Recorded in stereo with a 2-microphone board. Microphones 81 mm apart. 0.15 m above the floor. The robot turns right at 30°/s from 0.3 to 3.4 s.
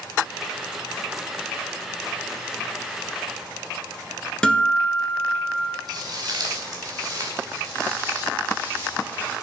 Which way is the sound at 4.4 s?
10° left (ahead or behind).